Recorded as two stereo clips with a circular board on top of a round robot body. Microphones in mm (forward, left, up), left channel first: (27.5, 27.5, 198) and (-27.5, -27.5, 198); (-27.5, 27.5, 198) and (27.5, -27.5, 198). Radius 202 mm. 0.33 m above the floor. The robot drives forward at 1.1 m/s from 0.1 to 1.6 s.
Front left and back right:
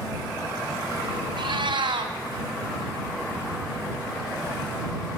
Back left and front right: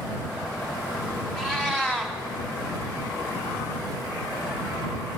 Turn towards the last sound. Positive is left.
turn(degrees=-140)